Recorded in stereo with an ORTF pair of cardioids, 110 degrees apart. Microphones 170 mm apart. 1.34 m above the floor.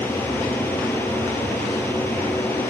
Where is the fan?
10° left.